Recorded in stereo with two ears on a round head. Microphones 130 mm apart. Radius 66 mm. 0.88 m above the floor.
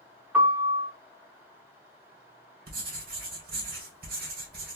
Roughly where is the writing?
Right.